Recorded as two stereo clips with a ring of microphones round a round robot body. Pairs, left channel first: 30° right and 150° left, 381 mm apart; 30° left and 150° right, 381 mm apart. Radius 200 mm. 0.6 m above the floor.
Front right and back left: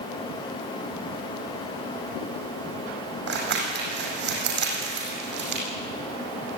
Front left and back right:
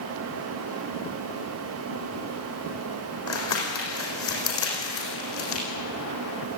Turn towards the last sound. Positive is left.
turn(degrees=85)